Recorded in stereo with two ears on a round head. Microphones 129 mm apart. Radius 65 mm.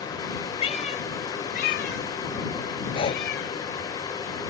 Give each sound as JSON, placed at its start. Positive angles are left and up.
{"t": 0.6, "sound": "a cat meowing", "side_deg": 45}
{"t": 2.9, "sound": "breathing", "side_deg": 40}